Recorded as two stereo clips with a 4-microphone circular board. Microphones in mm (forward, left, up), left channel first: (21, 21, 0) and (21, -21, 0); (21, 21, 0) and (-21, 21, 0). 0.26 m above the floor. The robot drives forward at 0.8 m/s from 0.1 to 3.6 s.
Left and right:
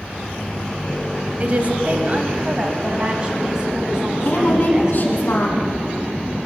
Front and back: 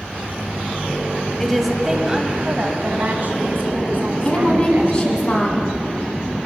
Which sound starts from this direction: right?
A woman speaking, at 1.4 s.